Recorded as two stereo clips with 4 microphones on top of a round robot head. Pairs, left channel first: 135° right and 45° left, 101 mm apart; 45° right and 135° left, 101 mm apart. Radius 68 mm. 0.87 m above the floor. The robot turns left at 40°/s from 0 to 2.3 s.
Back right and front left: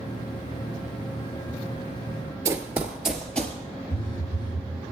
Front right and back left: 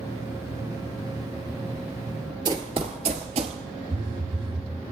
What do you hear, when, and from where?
2.5 s running footsteps: 95° left, 1.0 m; by 3.6 s 155° left, 1.1 m
3.9 s a phone buzzing: straight behind, 0.9 m